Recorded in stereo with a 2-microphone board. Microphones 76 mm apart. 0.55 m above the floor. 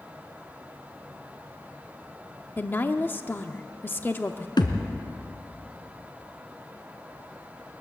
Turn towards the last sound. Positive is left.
turn(degrees=80)